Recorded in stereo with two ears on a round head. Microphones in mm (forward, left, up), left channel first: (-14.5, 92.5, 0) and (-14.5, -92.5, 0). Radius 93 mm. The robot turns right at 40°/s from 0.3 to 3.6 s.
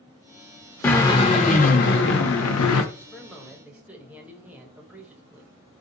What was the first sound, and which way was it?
A drill, 10° left.